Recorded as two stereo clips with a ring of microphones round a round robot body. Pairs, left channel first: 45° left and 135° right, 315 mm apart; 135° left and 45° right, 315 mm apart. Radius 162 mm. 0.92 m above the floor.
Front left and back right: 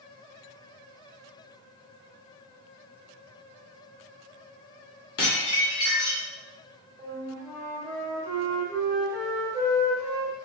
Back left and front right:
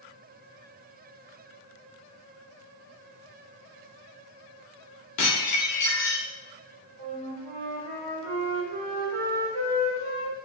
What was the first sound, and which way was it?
Dishes clattering, 95° left.